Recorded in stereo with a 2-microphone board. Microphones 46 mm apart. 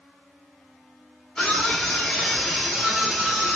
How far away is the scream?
About 1.0 m.